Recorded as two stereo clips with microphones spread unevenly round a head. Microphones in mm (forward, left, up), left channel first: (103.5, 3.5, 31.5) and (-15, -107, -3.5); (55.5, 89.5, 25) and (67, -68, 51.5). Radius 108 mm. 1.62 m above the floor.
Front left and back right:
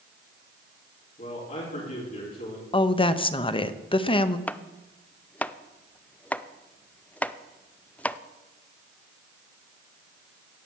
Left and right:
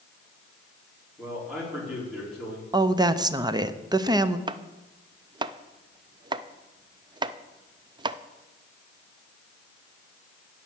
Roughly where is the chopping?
Ahead right.